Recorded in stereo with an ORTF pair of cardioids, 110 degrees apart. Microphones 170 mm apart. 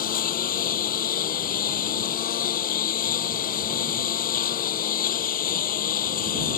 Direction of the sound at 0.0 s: 60° left.